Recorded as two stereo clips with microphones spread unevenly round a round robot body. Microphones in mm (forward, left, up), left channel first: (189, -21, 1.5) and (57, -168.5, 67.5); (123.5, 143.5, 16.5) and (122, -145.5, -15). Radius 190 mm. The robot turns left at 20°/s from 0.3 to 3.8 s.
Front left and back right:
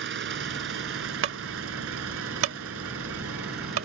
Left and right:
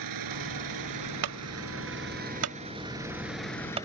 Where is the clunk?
115° right; by 3.9 s 165° right.